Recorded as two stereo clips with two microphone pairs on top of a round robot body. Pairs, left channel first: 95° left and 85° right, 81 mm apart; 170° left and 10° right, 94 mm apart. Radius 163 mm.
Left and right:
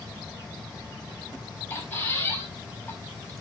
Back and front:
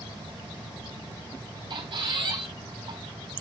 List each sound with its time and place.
1.7 s a squeak: 25° left, 5 m